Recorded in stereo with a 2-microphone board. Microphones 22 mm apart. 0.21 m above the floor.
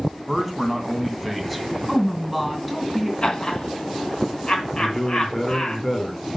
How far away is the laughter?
About 2 m.